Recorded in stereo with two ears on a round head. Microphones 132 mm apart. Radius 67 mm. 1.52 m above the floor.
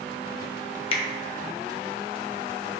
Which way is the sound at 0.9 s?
40° left (ahead or behind).